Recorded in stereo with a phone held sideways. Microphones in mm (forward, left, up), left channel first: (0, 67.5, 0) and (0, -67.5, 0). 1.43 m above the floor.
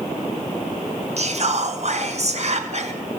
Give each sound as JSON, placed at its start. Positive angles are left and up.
{"t": 1.2, "sound": "whispering", "side_deg": -55, "distance_m": 1.0}